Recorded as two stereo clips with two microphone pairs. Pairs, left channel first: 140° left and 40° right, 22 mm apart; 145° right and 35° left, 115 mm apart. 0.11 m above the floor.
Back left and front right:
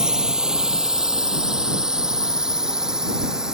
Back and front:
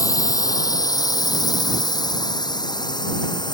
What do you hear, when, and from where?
0.0 s a drone: 90° right; by 3.5 s 95° right